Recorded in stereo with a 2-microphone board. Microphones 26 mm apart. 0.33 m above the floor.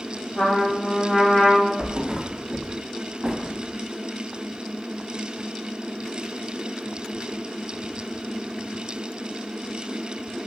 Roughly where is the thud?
Right.